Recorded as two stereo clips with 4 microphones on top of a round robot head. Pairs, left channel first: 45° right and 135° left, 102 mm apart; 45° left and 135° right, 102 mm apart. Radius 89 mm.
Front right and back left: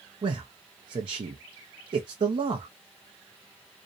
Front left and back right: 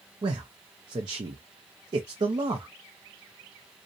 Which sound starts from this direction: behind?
A man speaking, at 0.2 s.